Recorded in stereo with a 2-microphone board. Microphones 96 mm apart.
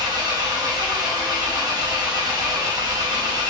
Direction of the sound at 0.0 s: 45° right (ahead or behind).